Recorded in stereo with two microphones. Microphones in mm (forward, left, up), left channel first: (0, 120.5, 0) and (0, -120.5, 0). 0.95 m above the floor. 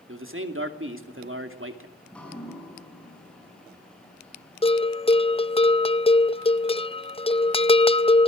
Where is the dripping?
5° left (ahead or behind), 6 m.